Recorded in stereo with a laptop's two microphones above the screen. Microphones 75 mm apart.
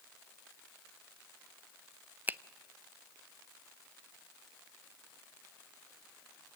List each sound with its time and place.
2.3 s a finger snap: 25° right (ahead or behind), 0.6 m